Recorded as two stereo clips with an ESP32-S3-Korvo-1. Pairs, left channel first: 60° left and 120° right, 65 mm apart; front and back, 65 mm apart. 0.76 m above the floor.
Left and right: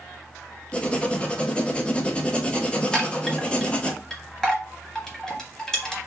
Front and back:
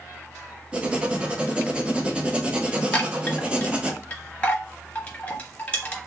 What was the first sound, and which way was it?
Writing, 125° left.